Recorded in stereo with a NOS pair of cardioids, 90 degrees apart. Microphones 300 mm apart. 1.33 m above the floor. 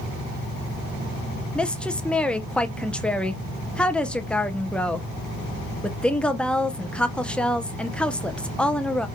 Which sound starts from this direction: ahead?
A woman speaking, at 1.6 s.